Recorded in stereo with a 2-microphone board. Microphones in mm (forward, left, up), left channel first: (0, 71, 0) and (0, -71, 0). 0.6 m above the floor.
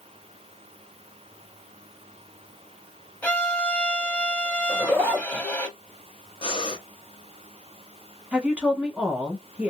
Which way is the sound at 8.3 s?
10° right (ahead or behind).